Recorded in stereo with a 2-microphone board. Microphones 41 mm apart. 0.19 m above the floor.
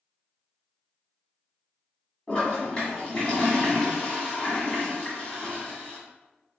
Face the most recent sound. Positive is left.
turn(degrees=25)  # may be behind; listen again after turning